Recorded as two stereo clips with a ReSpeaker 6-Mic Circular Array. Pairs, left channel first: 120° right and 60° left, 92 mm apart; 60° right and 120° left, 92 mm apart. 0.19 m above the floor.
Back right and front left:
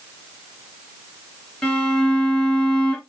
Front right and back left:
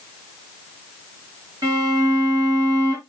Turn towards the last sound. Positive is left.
turn(degrees=155)